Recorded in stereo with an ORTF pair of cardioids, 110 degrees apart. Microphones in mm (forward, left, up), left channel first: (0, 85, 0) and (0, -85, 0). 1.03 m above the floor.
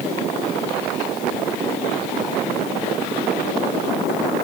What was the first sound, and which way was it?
Only background noise.